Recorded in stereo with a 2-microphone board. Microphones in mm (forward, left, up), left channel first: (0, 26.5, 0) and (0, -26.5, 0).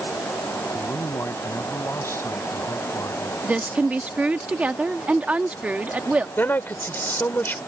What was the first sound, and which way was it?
A man speaking, 60° left (ahead or behind).